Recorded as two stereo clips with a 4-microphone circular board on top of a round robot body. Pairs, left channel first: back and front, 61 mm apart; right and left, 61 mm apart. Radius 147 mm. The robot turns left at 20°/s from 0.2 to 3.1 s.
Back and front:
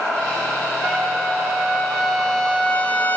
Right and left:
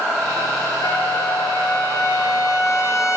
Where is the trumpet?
75° right, 0.6 m; by 3.2 s 120° right, 0.6 m.